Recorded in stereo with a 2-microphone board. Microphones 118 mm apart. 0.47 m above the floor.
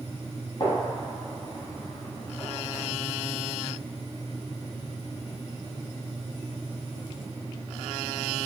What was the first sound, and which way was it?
A gunshot, 40° left (ahead or behind).